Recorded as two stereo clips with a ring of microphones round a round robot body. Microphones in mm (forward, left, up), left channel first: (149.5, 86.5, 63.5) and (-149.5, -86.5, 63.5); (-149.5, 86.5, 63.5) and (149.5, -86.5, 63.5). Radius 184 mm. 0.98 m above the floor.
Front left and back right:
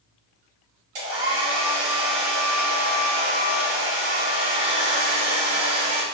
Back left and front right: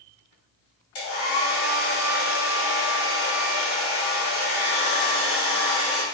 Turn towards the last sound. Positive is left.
turn(degrees=-160)